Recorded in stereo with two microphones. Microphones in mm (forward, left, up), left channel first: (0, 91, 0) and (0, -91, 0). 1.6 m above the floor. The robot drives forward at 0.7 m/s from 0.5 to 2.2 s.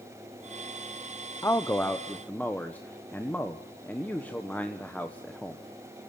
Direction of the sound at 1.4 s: 15° left (ahead or behind).